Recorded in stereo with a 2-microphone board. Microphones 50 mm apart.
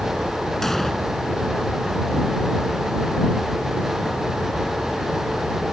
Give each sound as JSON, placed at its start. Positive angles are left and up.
{"t": 0.6, "sound": "an explosion", "side_deg": 5}